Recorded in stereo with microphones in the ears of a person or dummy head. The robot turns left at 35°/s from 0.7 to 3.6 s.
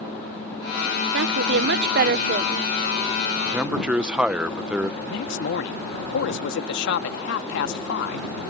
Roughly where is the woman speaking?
Right.